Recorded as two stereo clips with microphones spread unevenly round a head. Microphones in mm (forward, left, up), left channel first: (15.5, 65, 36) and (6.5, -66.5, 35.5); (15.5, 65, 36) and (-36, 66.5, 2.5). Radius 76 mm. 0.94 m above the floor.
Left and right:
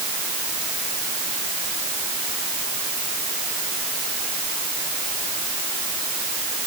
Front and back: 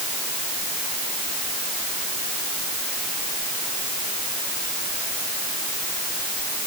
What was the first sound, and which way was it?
Only background noise.